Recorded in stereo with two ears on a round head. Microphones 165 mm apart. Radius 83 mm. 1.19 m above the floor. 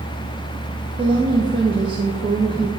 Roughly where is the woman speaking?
Right.